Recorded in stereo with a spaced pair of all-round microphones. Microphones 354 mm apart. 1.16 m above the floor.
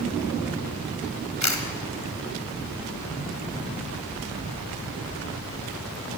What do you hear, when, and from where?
1.4 s a camera shutter: 50° left (ahead or behind), 1.3 m